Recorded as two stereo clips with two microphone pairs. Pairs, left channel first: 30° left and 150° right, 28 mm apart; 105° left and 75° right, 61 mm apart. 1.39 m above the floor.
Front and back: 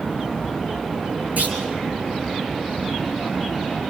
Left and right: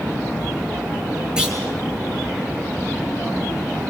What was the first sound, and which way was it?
A clunk, 150° right.